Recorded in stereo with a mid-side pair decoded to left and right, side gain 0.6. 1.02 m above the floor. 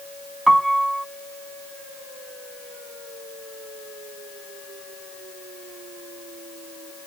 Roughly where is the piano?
Ahead.